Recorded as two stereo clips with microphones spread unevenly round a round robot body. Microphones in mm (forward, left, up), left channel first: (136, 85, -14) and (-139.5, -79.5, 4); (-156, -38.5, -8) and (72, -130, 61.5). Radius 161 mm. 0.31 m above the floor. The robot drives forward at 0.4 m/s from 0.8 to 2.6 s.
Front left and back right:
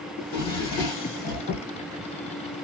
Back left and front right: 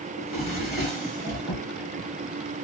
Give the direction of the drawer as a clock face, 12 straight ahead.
10 o'clock.